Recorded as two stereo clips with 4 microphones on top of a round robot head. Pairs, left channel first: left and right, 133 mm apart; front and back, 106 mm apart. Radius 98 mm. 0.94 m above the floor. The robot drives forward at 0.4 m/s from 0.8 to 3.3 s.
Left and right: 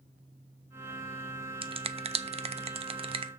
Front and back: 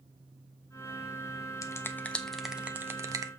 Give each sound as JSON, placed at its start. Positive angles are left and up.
{"t": 1.6, "sound": "a finger snap", "azimuth_deg": -50, "distance_m": 0.7}